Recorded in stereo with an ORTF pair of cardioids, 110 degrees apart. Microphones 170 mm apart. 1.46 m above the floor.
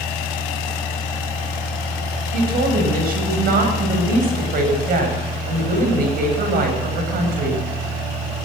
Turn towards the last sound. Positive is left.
turn(degrees=-60)